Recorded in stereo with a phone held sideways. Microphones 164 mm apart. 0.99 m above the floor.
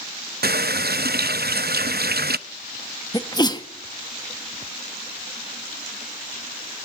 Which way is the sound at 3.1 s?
25° left (ahead or behind).